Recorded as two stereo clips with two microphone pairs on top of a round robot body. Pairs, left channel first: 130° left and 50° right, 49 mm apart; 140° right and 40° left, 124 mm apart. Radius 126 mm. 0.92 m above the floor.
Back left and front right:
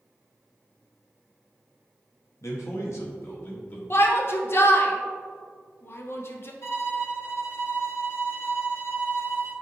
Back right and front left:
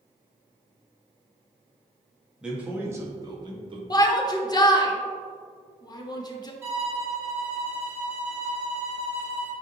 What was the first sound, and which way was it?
A man speaking, 125° left.